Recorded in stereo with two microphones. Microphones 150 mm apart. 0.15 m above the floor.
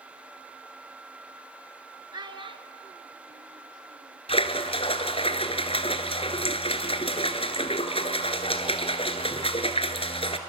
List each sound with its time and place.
2.1 s a child speaking: 30° right (ahead or behind), 1.3 m; by 4.2 s 60° right (ahead or behind), 2.5 m
4.3 s a splash: 40° left (ahead or behind), 1.3 m